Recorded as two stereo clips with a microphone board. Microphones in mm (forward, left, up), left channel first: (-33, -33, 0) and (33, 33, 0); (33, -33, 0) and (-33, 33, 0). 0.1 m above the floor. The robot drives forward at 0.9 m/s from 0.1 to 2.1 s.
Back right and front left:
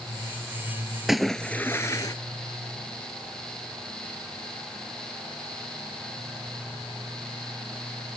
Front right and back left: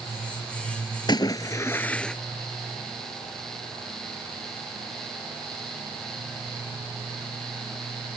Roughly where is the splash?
Ahead right.